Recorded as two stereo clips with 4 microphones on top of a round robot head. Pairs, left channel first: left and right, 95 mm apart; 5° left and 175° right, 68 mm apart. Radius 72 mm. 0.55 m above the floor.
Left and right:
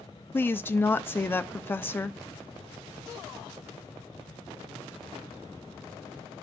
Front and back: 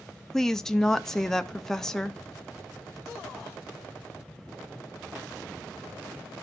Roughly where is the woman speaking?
Left.